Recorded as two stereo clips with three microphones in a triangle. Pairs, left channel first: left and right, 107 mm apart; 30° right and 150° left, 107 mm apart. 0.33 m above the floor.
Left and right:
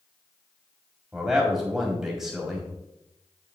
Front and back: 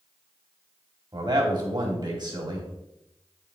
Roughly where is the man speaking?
Behind.